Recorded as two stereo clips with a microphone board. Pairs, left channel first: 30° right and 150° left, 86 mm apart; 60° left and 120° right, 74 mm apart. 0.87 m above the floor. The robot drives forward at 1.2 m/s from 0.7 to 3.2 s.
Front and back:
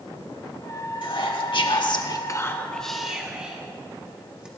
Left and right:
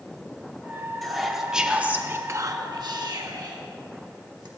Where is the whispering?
30° right, 2 m; by 4.5 s 130° right, 1.3 m.